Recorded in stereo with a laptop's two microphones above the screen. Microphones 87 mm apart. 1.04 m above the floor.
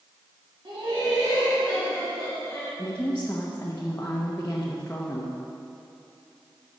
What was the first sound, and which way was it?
Laughter, 70° right (ahead or behind).